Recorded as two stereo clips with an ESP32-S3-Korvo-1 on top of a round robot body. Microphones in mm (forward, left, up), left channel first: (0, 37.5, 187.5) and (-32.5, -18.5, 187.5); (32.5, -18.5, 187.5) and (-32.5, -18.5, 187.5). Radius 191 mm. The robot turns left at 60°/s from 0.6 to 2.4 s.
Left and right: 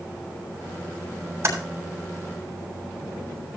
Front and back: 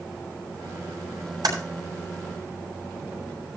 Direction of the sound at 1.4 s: 165° right.